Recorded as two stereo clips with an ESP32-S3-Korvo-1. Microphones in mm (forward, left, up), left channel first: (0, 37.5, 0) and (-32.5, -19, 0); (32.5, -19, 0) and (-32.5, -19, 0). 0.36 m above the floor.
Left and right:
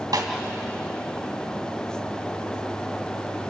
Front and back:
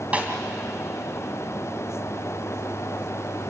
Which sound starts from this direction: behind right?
A snare drum, at 0.1 s.